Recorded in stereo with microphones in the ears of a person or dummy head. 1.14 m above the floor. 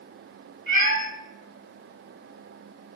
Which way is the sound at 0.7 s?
60° right (ahead or behind).